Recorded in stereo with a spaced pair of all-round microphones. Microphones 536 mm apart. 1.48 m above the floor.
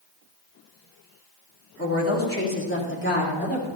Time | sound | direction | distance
1.8 | a woman speaking | 25° left (ahead or behind) | 2.5 m